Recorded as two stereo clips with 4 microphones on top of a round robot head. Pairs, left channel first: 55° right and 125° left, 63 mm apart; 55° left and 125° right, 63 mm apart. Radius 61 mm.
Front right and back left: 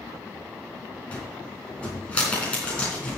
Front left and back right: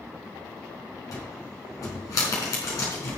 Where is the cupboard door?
20° left, 4 m.